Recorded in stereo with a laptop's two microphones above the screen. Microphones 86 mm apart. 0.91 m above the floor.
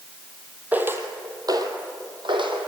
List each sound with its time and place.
0.7 s footsteps: 15° right (ahead or behind), 2 m; by 2.7 s 75° right (ahead or behind), 3 m